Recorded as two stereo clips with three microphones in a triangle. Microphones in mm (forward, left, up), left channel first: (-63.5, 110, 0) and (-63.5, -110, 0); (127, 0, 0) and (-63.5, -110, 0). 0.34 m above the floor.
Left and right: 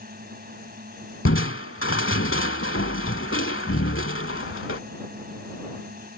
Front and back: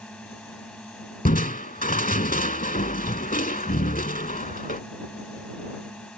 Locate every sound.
0.0 s a drone: 55° right
1.2 s crushing: 75° left